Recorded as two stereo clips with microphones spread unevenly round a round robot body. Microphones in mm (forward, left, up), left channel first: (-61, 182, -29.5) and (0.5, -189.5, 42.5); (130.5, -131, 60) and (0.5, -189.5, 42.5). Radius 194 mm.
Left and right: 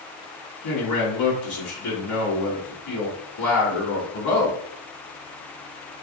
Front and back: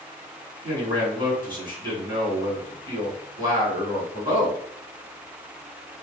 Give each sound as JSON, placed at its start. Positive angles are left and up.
{"t": 0.6, "sound": "a man speaking", "azimuth_deg": 110, "distance_m": 2.0}